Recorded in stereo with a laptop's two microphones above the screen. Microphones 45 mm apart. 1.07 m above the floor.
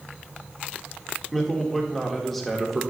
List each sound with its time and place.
1.3 s a man speaking: 5° left (ahead or behind), 1.7 m